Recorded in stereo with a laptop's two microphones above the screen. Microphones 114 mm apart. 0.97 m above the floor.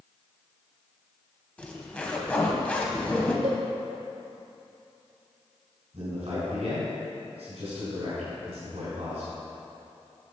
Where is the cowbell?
75° right (ahead or behind), 1.7 m.